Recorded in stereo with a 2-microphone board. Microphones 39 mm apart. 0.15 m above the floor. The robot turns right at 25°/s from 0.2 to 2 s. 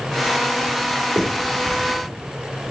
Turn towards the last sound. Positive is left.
turn(degrees=-20)  # may be behind; listen again after turning